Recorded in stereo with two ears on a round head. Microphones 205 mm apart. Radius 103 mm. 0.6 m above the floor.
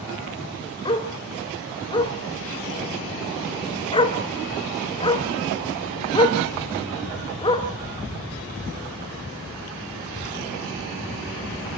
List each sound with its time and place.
0.8 s a dog barking: 20° left (ahead or behind), 2 m